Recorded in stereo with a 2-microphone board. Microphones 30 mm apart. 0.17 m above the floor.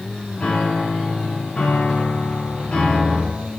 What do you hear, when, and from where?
0.4 s a piano: 45° left (ahead or behind), 1.6 m